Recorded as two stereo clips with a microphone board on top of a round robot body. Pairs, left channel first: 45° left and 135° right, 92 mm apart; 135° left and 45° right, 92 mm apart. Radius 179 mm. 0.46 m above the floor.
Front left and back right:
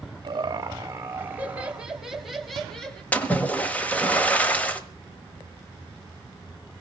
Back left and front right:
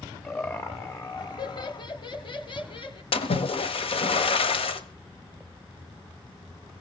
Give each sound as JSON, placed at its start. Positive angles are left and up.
{"t": 0.2, "sound": "laughter", "azimuth_deg": -165, "distance_m": 1.2}
{"t": 3.1, "sound": "a splash", "azimuth_deg": 120, "distance_m": 1.4}